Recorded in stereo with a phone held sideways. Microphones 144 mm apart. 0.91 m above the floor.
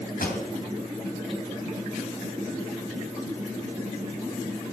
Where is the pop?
80° left, 2.5 m.